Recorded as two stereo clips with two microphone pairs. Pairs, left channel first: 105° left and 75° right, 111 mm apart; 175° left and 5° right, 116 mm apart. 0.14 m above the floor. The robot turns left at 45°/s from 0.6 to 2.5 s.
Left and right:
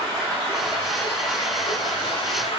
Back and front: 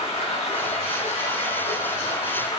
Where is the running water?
165° right, 5 m; by 2.6 s 110° left, 5 m.